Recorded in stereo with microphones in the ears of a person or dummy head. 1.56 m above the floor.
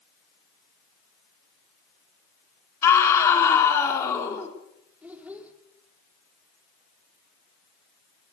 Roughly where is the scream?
Centre.